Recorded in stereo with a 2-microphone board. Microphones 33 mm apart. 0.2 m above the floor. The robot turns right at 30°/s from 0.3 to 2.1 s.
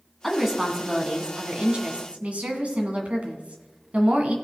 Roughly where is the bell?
No bell in this recording.